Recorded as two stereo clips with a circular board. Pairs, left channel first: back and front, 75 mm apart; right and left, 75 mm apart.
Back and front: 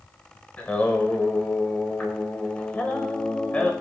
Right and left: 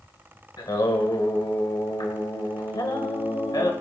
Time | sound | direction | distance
0.6 | singing | 110° right | 1.5 m